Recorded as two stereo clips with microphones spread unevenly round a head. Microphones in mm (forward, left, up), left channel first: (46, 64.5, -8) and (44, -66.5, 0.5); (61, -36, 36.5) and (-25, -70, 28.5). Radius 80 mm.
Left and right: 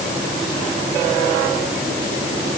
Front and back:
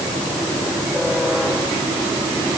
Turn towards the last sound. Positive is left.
No sound to turn to.